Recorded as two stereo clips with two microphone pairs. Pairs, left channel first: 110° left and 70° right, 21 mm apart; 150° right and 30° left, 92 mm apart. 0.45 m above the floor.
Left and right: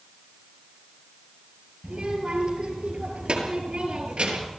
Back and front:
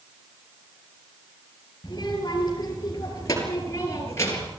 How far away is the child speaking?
About 5.5 m.